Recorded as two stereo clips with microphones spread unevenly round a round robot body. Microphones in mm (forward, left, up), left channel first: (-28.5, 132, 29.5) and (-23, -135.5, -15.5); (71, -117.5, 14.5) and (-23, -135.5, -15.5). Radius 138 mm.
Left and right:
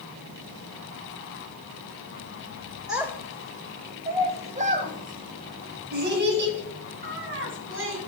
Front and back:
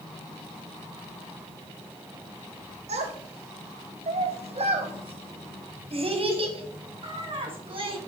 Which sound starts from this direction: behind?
A child speaking, at 2.9 s.